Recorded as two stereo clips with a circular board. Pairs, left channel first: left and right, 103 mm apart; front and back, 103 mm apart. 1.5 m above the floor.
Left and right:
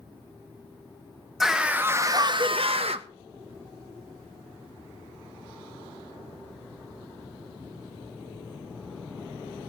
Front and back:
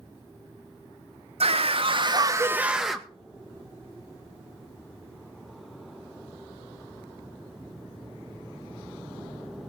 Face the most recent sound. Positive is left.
turn(degrees=-85)